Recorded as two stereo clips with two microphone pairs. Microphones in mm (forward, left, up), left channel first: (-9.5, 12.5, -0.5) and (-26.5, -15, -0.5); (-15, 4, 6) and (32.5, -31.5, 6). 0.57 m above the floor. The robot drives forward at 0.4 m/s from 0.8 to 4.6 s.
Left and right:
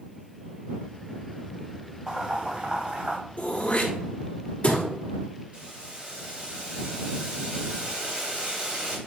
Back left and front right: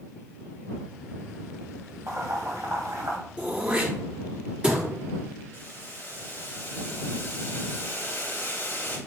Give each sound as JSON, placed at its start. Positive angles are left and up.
{"t": 2.1, "sound": "boiling", "azimuth_deg": -65, "distance_m": 2.5}
{"t": 3.4, "sound": "throat clearing", "azimuth_deg": 15, "distance_m": 2.0}
{"t": 5.5, "sound": "boiling", "azimuth_deg": -165, "distance_m": 2.5}